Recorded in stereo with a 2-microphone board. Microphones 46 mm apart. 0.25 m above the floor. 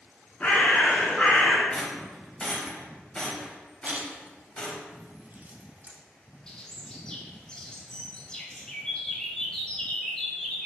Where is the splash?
35° right (ahead or behind), 0.6 m.